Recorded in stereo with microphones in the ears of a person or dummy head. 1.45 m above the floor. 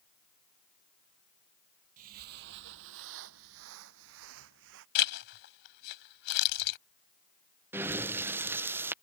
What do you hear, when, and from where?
2.0 s footsteps: 45° right (ahead or behind); by 4.8 s 65° right (ahead or behind)
5.0 s a zipper: 60° left (ahead or behind)
7.7 s breathing: 15° right (ahead or behind)